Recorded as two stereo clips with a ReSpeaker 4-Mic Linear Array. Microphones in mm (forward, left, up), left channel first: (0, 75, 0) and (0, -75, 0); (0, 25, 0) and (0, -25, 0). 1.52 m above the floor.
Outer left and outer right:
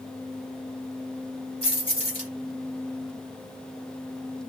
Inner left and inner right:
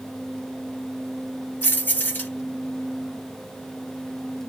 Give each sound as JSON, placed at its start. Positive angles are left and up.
{"t": 1.6, "sound": "keys jangling", "side_deg": 40, "distance_m": 1.4}